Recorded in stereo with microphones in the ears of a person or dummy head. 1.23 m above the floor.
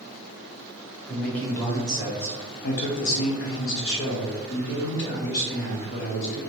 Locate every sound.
1.1 s a man speaking: 5° left (ahead or behind), 1.4 m; by 6.4 s 45° left (ahead or behind), 2.5 m